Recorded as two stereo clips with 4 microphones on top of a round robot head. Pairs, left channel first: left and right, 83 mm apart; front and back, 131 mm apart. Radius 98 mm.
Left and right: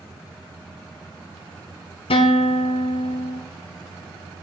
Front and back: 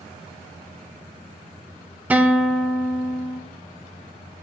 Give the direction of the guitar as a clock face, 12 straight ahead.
9 o'clock.